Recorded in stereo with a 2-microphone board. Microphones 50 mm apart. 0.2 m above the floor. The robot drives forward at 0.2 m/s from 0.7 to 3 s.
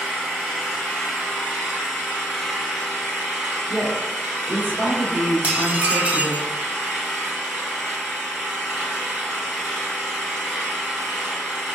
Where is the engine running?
Centre (ahead or behind), 1.9 m.